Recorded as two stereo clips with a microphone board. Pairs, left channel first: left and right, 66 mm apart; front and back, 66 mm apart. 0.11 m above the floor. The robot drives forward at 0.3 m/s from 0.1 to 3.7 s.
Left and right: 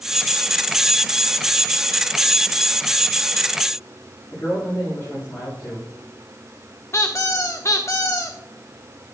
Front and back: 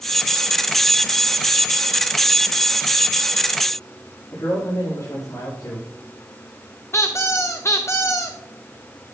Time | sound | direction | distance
4.3 | a man speaking | 25° left | 6.5 m
6.9 | a squeak | 45° left | 1.5 m